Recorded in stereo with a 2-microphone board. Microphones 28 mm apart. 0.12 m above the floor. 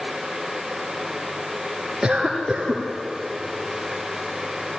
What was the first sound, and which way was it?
A cough, 20° right (ahead or behind).